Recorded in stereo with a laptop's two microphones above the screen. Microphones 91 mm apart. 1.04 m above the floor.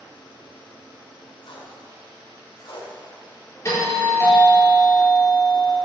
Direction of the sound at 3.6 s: 35° left (ahead or behind).